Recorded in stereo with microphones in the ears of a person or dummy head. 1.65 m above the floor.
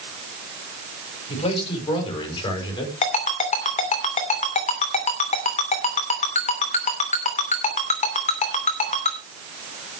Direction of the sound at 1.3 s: 30° left (ahead or behind).